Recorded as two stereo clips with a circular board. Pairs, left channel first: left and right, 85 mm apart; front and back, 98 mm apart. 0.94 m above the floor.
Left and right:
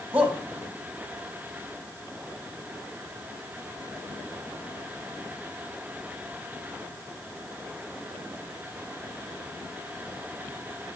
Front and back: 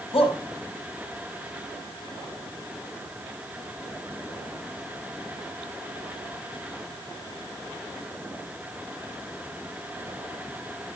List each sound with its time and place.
0.1 s a shout: 15° right, 5 m